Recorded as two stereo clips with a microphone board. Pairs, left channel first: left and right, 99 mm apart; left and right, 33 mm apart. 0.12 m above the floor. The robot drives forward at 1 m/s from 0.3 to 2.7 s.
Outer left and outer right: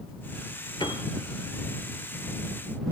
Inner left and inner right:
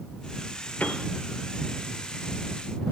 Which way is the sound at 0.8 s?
50° left (ahead or behind).